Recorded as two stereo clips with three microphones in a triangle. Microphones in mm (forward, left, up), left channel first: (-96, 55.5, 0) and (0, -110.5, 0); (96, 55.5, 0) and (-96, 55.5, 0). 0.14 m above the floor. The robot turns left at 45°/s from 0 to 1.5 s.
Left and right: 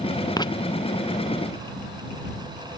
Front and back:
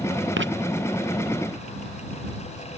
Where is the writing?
170° right; by 0.5 s 175° right.